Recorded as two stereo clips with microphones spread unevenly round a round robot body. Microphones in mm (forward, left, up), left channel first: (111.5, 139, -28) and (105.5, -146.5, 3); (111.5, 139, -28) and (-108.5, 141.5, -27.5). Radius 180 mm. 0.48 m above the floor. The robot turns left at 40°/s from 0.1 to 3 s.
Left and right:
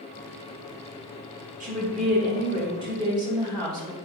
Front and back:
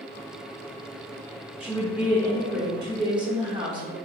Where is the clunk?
I don't hear a clunk.